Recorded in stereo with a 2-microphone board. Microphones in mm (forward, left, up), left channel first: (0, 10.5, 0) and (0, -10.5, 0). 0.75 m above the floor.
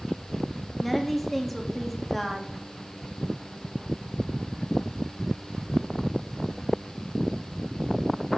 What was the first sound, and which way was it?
A woman speaking, 10° left (ahead or behind).